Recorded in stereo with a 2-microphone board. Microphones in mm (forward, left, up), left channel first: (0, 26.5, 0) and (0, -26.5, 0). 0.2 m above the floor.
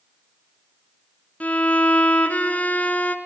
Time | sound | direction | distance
1.4 | a violin | 25° left (ahead or behind) | 1.2 m